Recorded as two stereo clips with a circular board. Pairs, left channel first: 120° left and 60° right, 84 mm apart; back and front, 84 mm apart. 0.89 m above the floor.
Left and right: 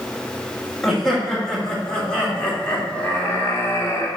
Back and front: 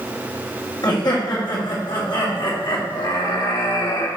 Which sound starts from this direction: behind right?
Laughter, at 0.8 s.